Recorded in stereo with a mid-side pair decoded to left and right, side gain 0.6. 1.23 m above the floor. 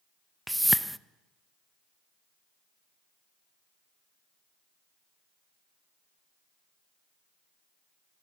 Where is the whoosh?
5° right, 0.7 m.